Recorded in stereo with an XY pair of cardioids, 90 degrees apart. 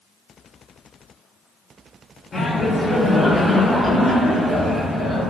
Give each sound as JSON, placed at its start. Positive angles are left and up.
{"t": 2.3, "sound": "laughter", "azimuth_deg": 35, "distance_m": 0.9}